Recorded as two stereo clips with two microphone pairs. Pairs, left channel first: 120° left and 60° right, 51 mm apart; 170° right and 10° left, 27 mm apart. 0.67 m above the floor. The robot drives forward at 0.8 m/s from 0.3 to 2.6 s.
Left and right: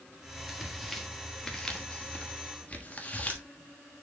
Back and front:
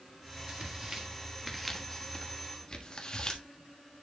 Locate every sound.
0.5 s tearing paper: 25° left, 1.6 m; by 3.4 s 150° left, 1.4 m